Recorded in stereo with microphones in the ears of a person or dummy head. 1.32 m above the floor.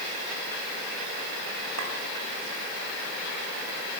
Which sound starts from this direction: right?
A clink, at 1.8 s.